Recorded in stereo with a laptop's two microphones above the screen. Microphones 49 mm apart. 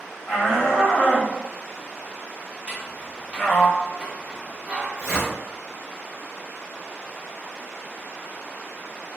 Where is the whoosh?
20° left (ahead or behind), 1.6 m.